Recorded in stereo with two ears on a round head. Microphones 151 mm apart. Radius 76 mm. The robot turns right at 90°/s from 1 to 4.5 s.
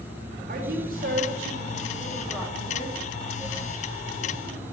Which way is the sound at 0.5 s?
125° right.